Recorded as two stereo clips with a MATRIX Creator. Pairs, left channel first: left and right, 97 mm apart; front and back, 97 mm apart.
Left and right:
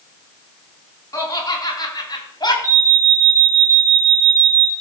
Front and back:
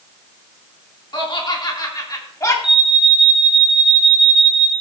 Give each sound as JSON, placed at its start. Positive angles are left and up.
{"t": 1.1, "sound": "laughter", "azimuth_deg": 35, "distance_m": 4.0}
{"t": 2.6, "sound": "an alarm", "azimuth_deg": -35, "distance_m": 3.0}